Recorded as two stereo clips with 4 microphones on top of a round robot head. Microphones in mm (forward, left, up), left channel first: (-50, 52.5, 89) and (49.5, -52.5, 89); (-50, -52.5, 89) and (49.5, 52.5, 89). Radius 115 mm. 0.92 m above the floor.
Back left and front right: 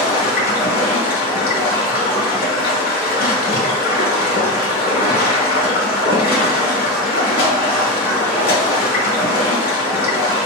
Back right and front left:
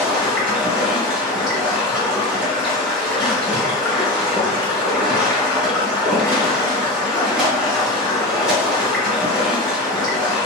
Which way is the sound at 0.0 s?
130° left.